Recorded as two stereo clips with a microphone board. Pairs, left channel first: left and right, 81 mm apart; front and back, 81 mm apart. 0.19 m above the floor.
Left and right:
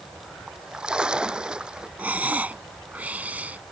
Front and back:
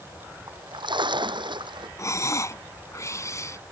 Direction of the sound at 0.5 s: 170° right.